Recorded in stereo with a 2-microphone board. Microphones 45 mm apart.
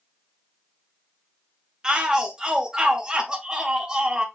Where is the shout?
20° right (ahead or behind), 0.7 m.